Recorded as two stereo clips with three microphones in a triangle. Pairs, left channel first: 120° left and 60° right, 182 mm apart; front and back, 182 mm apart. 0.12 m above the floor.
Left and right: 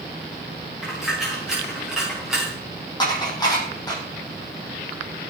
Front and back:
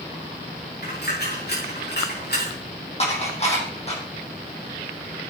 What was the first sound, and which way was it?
A dropped coin, 25° left.